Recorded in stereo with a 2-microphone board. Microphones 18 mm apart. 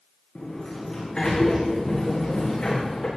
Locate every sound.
0.3 s a sliding door: 35° left (ahead or behind), 5.5 m